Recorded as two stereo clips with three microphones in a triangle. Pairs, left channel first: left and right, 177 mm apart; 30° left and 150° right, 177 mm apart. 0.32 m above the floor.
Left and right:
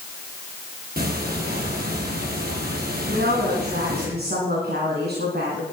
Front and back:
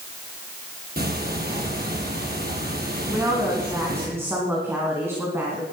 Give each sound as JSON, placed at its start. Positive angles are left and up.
{"t": 1.0, "sound": "ticking", "azimuth_deg": -120, "distance_m": 4.5}
{"t": 3.1, "sound": "a woman speaking", "azimuth_deg": -75, "distance_m": 3.5}